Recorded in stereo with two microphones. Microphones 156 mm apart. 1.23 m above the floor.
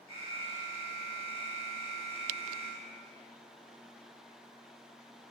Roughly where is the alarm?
Right.